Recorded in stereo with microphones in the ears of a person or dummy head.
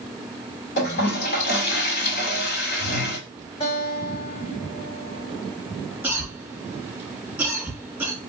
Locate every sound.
0.8 s a toilet flushing: 60° left (ahead or behind), 2.5 m
3.6 s a guitar: 35° left (ahead or behind), 2.5 m
6.0 s a cough: 10° right (ahead or behind), 1.4 m